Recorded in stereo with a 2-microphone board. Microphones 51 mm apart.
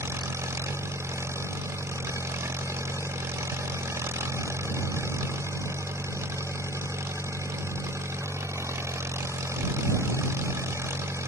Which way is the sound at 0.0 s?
65° right (ahead or behind).